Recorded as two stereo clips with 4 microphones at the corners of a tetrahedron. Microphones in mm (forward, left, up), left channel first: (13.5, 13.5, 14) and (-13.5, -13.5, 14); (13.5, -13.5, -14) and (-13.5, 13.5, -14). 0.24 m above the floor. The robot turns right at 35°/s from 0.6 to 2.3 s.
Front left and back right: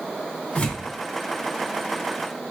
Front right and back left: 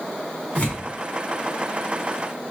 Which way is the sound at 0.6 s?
5° left.